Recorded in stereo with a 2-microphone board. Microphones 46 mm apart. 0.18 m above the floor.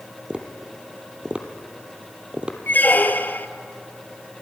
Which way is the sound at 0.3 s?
20° right (ahead or behind).